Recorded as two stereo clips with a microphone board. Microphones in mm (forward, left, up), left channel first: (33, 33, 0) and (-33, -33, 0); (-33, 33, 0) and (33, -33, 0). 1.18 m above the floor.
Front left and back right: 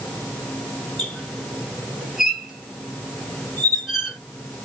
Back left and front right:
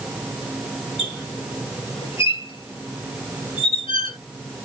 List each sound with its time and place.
1.0 s a squeak: 140° left, 2.5 m